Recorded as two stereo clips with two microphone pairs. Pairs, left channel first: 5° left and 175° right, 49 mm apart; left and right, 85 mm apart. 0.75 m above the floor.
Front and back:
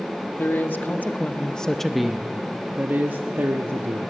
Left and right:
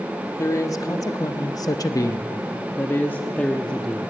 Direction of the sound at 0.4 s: 45° left.